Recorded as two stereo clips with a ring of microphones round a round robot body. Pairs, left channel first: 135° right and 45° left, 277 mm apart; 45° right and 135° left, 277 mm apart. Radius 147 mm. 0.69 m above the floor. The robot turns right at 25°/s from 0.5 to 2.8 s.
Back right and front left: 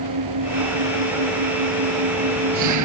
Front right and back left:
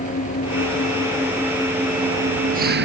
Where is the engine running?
20° left; by 2.9 s 80° left.